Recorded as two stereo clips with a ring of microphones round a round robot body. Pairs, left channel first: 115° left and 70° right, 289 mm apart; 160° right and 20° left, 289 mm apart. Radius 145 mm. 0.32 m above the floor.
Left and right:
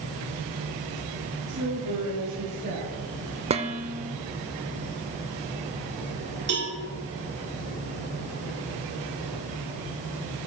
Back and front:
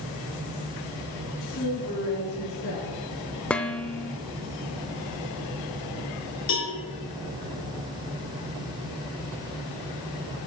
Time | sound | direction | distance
1.5 | a woman speaking | 125° right | 2 m
3.5 | dishes clattering | 80° right | 0.6 m
6.5 | a cowbell | 115° right | 3 m